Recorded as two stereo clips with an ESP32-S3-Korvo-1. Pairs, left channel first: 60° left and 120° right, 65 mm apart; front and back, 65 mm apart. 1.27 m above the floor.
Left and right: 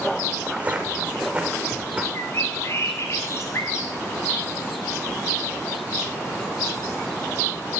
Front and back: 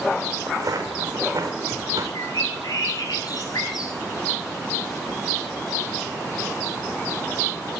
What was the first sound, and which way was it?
Footsteps, 175° left.